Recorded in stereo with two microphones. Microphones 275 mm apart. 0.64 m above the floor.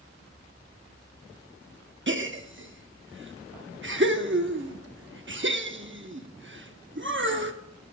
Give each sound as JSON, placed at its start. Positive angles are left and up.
{"t": 2.1, "sound": "a gasp", "side_deg": -45, "distance_m": 0.9}